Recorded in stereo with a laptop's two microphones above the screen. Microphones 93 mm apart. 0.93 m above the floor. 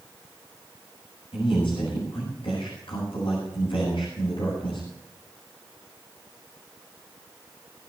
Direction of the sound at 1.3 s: 70° left (ahead or behind).